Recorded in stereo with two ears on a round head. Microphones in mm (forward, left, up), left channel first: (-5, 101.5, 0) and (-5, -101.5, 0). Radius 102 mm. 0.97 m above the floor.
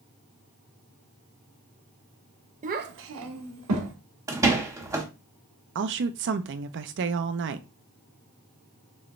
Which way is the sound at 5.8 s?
55° right (ahead or behind).